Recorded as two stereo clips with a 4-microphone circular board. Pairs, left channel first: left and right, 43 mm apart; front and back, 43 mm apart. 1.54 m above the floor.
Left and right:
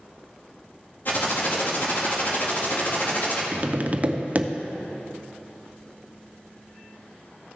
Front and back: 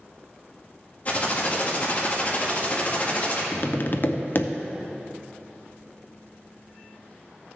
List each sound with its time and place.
1.1 s typing on a keyboard: 50° left, 1.9 m
3.5 s tapping: 35° right, 0.5 m